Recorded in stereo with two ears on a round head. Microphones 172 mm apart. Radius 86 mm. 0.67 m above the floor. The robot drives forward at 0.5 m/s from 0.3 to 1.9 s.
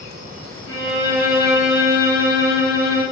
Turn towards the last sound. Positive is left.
turn(degrees=-35)  # may be behind; listen again after turning